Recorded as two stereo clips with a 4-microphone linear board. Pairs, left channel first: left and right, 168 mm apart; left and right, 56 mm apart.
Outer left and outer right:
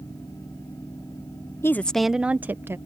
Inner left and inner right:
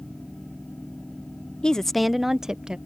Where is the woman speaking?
15° left (ahead or behind); by 2.8 s 15° right (ahead or behind).